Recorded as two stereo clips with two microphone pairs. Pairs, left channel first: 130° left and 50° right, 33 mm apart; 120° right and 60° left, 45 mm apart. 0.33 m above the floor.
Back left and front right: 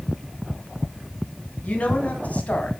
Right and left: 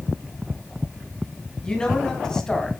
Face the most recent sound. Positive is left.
turn(degrees=160)